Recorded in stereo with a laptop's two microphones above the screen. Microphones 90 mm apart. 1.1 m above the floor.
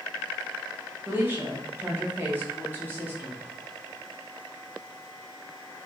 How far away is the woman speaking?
About 0.6 m.